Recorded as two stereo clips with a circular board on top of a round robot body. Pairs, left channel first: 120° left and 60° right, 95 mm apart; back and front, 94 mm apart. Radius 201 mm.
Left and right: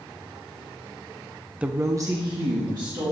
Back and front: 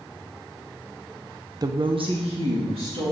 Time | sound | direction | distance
1.6 | a woman speaking | 15° left | 0.6 m